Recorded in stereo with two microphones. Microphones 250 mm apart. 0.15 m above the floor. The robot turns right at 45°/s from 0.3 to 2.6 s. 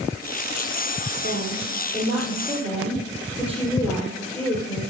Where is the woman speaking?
55° right, 3.5 m; by 4.9 s 5° left, 3.5 m.